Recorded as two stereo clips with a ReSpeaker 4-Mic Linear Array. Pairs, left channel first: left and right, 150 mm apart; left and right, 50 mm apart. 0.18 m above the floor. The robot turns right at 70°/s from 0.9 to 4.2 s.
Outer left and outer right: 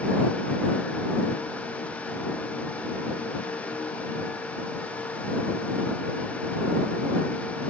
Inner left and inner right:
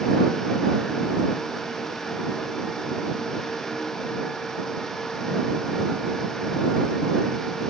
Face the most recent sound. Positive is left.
No sound to turn to.